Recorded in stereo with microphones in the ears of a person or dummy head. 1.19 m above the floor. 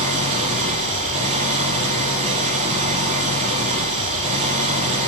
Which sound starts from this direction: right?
An engine running, at 0.0 s.